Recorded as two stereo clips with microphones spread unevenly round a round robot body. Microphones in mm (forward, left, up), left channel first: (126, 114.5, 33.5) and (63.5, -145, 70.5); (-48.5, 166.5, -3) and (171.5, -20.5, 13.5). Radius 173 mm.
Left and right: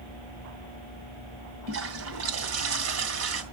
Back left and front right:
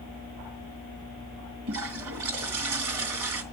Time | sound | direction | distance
1.7 | a toilet flushing | 80° right | 3 m